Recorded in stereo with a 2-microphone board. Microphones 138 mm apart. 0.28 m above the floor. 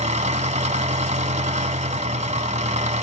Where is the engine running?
60° right (ahead or behind), 1.1 m.